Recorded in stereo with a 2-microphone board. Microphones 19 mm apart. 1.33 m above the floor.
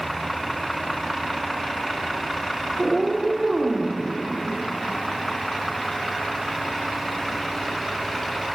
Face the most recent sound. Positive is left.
turn(degrees=-20)  # may be behind; listen again after turning